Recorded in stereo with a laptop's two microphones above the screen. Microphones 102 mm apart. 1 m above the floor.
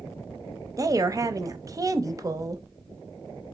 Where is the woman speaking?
35° right (ahead or behind), 0.6 m.